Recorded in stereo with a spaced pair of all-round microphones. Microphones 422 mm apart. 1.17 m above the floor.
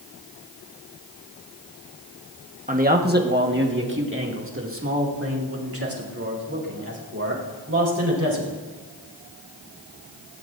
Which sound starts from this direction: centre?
A man speaking, at 2.7 s.